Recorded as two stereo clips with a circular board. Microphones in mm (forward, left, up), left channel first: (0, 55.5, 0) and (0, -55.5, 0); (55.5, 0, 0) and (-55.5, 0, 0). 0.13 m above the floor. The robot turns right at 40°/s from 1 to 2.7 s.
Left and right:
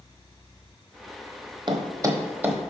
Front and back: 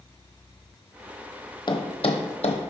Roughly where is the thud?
Ahead right.